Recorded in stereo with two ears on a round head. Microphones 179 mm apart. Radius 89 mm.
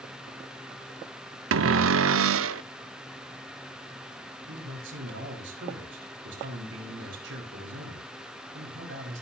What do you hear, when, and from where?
1.5 s a cupboard door: 70° right (ahead or behind), 0.6 m
4.5 s a man speaking: 65° right (ahead or behind), 4.5 m